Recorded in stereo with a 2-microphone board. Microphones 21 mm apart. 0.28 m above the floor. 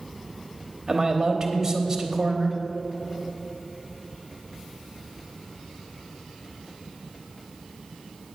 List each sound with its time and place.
0.9 s a man speaking: 15° right (ahead or behind), 0.9 m